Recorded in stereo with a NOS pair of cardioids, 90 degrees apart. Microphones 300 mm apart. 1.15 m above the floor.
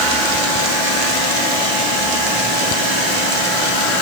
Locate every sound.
Only background noise.